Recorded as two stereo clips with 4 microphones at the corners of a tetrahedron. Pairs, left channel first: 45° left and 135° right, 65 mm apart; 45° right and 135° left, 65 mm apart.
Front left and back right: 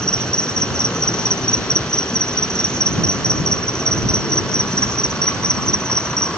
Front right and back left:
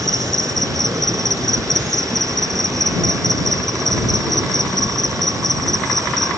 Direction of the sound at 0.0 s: 120° left.